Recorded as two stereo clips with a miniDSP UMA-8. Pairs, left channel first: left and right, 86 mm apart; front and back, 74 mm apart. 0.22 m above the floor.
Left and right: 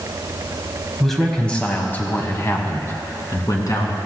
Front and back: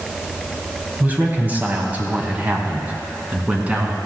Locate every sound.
1.0 s a man speaking: straight behind, 1.3 m; by 4.0 s 115° left, 2.5 m